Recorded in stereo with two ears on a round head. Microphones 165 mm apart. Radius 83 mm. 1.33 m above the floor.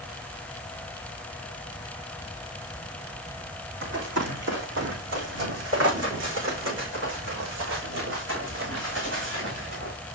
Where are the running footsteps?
70° right (ahead or behind), 4.5 m.